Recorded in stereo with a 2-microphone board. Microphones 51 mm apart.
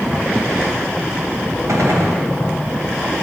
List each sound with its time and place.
1.7 s a gunshot: 75° right (ahead or behind), 2.5 m